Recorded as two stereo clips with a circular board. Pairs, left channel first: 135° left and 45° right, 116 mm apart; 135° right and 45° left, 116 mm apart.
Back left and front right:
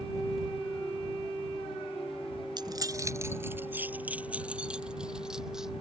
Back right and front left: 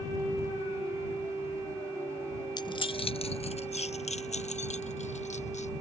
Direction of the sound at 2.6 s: 90° right.